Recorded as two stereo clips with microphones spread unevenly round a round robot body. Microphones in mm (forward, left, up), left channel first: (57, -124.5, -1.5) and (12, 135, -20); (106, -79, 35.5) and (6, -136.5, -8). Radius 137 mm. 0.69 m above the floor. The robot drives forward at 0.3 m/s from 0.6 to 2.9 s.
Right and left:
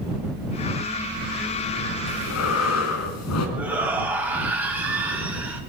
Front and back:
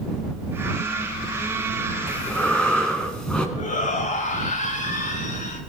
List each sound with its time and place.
2.1 s breathing: 50° right, 4 m
3.6 s a shout: 15° left, 5.5 m